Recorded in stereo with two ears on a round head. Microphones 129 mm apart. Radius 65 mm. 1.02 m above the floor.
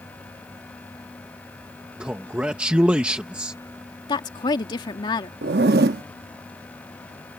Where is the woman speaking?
30° left (ahead or behind).